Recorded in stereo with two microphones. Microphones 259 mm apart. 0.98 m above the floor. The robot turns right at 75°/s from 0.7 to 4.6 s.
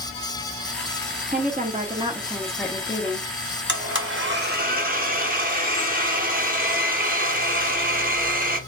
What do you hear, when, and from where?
1.3 s a woman speaking: 90° right, 0.6 m; by 3.3 s 55° left, 0.6 m
3.7 s a blender: 115° right, 0.7 m; by 8.6 s 45° right, 0.7 m